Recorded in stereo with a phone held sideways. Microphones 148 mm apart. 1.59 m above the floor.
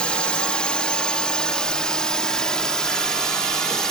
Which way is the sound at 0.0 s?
5° left (ahead or behind).